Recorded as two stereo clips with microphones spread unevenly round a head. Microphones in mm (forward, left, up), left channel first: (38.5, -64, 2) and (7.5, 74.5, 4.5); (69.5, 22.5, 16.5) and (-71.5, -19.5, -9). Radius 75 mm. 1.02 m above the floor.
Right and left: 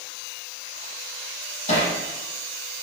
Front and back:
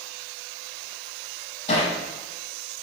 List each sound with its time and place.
1.7 s hammering: 35° right, 9 m